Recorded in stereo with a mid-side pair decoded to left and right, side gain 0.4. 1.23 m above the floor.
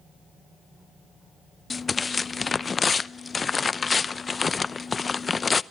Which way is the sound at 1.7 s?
35° left.